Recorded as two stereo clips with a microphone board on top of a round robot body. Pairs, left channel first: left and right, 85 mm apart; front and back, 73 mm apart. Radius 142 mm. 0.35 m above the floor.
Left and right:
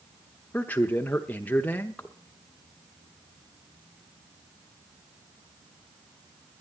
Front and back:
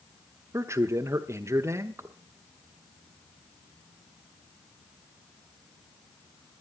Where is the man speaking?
150° left, 1.1 m.